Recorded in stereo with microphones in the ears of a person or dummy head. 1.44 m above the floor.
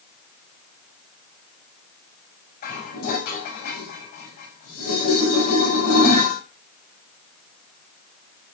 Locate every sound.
2.6 s dishes clattering: 55° left (ahead or behind), 6.5 m